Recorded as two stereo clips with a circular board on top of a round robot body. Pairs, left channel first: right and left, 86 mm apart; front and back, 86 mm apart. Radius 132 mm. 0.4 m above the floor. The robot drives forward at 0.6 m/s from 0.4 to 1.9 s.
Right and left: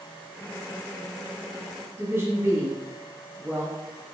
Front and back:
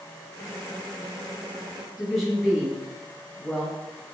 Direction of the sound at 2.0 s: 95° left.